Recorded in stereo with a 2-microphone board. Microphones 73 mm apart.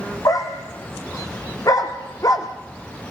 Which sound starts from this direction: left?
A dog barking, at 0.2 s.